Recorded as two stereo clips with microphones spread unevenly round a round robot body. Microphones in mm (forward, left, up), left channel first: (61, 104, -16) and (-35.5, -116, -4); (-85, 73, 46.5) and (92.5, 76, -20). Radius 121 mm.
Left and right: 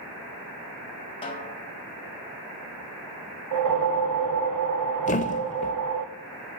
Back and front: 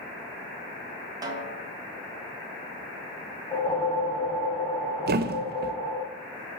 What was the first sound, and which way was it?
A snare drum, 15° left.